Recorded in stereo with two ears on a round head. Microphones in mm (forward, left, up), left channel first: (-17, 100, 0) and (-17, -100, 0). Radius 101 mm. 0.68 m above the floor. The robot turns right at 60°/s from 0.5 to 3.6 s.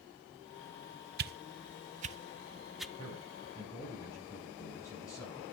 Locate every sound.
1.2 s a whoosh: 45° right (ahead or behind), 0.6 m; by 2.9 s centre (ahead or behind), 0.6 m
3.0 s a man speaking: 25° right, 7 m; by 5.4 s 15° left, 7 m